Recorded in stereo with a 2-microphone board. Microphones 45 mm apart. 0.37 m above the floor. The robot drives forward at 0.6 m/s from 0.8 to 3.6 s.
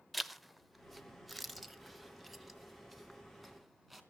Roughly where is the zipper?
Centre.